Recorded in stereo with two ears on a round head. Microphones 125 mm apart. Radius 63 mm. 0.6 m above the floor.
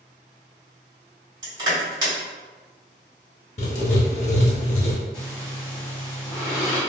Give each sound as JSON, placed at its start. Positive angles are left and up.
{"t": 1.4, "sound": "crushing", "side_deg": -30, "distance_m": 1.9}
{"t": 3.6, "sound": "writing", "side_deg": 55, "distance_m": 0.7}
{"t": 5.1, "sound": "breathing", "side_deg": 30, "distance_m": 1.5}